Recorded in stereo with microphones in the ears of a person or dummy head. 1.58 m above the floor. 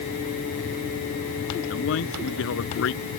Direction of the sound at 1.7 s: 70° left (ahead or behind).